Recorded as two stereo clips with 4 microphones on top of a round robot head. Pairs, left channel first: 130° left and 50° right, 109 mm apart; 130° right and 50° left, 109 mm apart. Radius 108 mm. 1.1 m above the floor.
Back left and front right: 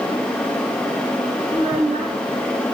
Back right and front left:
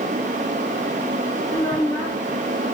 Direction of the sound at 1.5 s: 55° right.